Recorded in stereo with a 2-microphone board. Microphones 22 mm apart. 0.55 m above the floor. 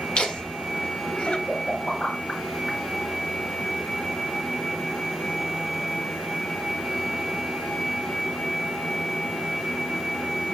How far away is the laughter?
About 1.8 m.